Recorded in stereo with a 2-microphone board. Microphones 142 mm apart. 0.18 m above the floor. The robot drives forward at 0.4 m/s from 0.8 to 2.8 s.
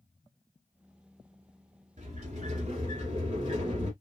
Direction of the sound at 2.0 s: 60° right (ahead or behind).